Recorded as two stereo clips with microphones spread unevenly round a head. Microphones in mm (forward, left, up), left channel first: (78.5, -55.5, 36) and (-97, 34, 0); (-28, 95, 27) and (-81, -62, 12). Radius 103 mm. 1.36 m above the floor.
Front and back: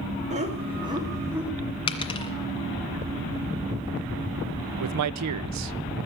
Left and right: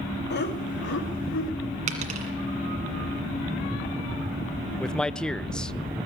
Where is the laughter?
95° left, 3 m; by 1.5 s 70° left, 3.5 m.